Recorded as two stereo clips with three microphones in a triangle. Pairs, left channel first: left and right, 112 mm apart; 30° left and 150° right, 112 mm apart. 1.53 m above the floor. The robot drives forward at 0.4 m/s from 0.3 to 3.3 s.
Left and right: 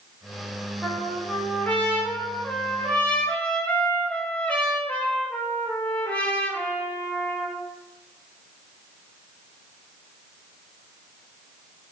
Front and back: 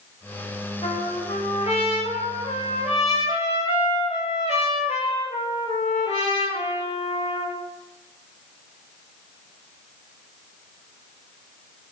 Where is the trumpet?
10° left, 6 m.